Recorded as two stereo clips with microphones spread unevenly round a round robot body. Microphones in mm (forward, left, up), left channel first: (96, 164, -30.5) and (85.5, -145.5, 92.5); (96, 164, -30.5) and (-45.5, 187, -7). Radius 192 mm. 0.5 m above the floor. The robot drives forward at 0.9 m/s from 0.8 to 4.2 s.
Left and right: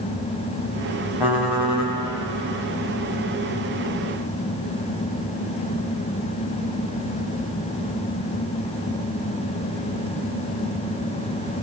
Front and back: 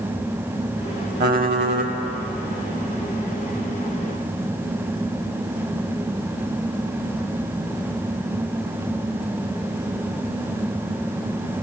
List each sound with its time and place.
1.2 s typing on a keyboard: 175° right, 0.7 m